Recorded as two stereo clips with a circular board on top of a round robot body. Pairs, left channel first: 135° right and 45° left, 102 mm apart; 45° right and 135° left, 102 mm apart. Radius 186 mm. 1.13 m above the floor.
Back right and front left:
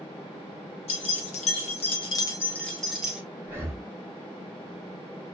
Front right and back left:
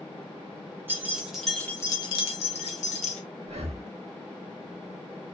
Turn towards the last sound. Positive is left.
turn(degrees=115)